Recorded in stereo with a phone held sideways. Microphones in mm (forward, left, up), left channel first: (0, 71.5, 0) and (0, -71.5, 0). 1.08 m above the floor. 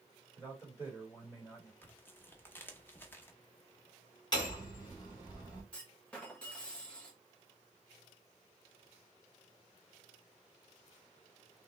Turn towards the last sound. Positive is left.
turn(degrees=10)  # may be behind; listen again after turning